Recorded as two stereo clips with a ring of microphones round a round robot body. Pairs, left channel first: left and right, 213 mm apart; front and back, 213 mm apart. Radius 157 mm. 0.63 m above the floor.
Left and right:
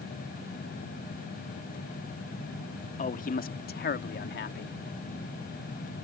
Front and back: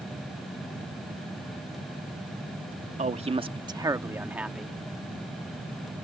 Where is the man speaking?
135° left; by 4.8 s 90° left.